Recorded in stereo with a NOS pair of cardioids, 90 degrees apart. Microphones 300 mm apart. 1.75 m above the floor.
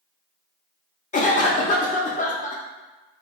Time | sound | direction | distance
1.1 | a cough | 25° left | 0.5 m